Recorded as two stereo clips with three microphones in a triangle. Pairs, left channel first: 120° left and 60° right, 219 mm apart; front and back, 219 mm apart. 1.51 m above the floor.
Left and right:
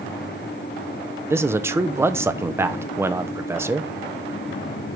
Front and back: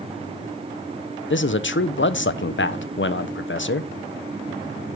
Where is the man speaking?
15° left, 0.5 m.